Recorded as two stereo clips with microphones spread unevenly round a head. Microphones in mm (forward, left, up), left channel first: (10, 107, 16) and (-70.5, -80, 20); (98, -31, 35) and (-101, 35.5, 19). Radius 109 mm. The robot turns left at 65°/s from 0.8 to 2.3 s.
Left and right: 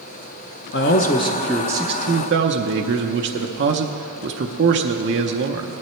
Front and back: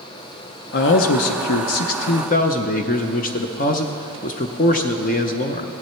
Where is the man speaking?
25° left, 0.6 m; by 5.7 s 70° right, 0.6 m.